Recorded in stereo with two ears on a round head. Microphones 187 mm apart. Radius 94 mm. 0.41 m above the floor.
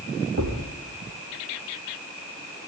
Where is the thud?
65° right (ahead or behind), 5.5 m.